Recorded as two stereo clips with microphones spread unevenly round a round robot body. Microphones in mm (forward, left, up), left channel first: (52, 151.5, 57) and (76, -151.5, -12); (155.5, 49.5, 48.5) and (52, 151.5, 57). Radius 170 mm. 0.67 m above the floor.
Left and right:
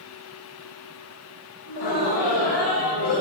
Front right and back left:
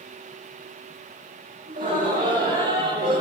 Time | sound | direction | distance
1.7 | laughter | 110° left | 8.5 m